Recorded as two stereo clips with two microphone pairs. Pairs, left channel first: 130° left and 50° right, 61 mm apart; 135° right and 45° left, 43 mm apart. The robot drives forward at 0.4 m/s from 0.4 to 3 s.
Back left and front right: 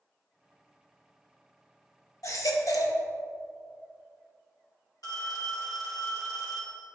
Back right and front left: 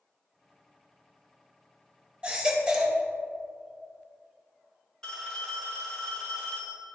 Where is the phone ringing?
145° left, 2 m.